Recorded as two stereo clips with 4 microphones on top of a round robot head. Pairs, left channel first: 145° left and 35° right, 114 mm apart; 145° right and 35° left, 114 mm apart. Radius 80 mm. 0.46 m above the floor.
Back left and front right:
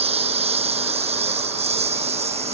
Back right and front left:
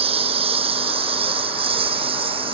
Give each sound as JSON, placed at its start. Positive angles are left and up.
{"t": 0.0, "sound": "a lawn mower", "azimuth_deg": 0}